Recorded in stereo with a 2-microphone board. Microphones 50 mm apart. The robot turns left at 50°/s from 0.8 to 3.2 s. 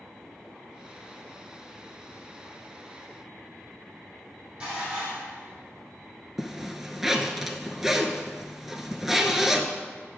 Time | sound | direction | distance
4.6 | dishes clattering | 25° right (ahead or behind) | 3 m
6.4 | a zipper | 5° right (ahead or behind) | 0.6 m